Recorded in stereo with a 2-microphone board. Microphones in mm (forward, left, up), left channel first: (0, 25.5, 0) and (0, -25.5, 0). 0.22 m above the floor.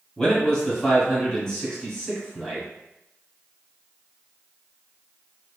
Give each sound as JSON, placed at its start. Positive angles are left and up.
{"t": 0.2, "sound": "a man speaking", "side_deg": 15, "distance_m": 1.5}